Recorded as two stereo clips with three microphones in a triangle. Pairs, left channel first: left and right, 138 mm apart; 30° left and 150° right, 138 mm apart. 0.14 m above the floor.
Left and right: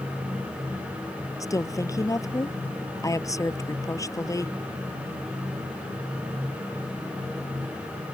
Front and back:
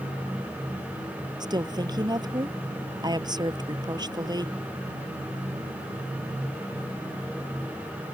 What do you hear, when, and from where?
1.4 s a woman speaking: 155° left